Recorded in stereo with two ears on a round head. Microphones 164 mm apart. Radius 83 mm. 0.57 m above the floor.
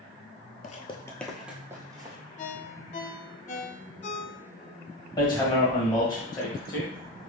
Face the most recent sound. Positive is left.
turn(degrees=20)  # may be behind; listen again after turning